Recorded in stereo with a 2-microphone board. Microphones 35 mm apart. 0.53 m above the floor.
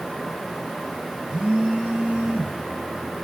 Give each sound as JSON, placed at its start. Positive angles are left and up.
{"t": 1.3, "sound": "a phone buzzing", "side_deg": -25, "distance_m": 1.4}